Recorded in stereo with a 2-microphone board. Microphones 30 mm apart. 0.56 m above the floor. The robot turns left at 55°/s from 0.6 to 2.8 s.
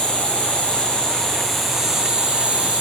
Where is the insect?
55° left, 2.5 m; by 2.8 s 65° right, 2.5 m.